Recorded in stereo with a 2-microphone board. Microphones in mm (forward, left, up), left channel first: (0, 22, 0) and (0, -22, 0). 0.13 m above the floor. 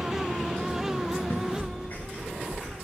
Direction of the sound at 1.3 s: 80° left.